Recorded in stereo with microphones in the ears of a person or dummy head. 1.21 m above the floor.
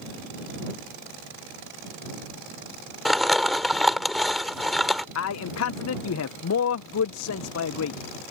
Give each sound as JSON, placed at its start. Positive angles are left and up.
{"t": 3.0, "sound": "crumpling", "side_deg": -5}
{"t": 5.2, "sound": "a man speaking", "side_deg": 70}